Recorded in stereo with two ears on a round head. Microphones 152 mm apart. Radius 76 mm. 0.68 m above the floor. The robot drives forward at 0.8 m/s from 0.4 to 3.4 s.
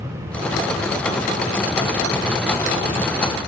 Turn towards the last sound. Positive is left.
No sound to turn to.